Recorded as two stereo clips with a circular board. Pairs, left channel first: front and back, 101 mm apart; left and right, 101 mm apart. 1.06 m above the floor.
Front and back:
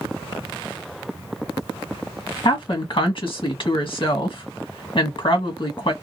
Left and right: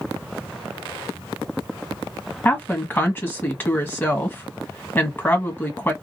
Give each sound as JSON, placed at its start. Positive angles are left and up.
{"t": 2.5, "sound": "a woman speaking", "azimuth_deg": 20, "distance_m": 1.5}